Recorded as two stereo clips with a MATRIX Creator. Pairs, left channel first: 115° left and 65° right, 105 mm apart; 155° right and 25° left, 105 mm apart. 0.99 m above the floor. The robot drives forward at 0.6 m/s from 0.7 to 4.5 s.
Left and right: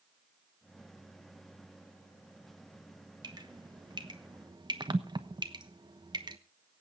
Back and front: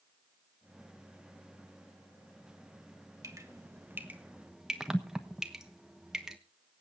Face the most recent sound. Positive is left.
turn(degrees=-60)